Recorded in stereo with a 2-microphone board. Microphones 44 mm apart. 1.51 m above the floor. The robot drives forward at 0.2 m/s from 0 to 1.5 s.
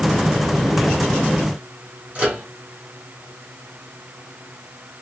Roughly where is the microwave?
Right.